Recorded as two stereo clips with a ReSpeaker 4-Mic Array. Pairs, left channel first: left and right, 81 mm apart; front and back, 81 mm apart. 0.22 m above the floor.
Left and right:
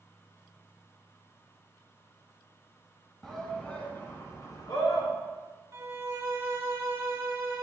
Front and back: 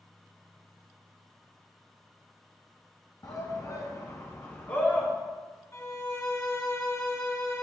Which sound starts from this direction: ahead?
A shout, at 3.2 s.